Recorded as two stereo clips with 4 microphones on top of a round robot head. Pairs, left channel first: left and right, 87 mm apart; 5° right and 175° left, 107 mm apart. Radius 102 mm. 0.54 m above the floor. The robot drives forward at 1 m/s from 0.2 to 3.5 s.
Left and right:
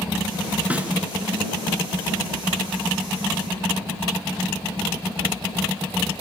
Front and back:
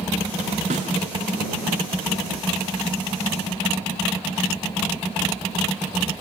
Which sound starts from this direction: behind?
A snare drum, at 0.7 s.